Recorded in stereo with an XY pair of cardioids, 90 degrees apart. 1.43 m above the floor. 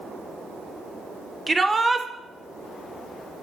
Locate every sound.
1.5 s a shout: 20° right, 1.0 m